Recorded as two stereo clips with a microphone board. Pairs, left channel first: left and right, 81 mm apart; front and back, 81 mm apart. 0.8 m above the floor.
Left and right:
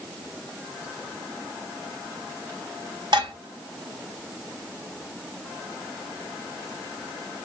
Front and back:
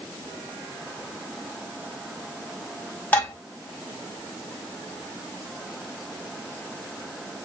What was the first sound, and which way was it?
Dishes clattering, 70° right.